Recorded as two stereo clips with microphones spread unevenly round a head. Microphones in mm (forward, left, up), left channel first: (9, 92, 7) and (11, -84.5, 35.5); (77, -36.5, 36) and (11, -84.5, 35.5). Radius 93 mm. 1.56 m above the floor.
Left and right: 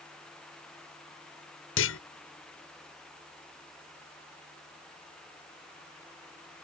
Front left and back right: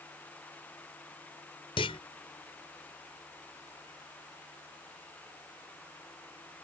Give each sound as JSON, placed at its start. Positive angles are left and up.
{"t": 1.8, "sound": "a clunk", "azimuth_deg": 80}